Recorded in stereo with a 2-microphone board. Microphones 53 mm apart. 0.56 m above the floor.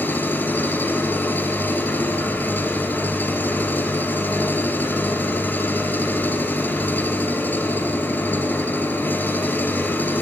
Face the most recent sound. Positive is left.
turn(degrees=35)  # may be behind; listen again after turning